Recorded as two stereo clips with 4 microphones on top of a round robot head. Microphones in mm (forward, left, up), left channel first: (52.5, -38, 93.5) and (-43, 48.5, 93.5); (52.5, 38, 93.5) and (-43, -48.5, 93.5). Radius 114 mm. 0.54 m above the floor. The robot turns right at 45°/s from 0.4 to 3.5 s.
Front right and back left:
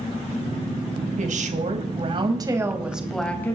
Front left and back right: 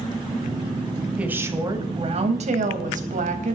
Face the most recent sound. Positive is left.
turn(degrees=-115)